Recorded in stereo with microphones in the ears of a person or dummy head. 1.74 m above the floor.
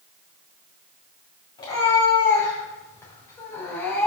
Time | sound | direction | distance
1.6 | a cat meowing | 25° left (ahead or behind) | 4.5 m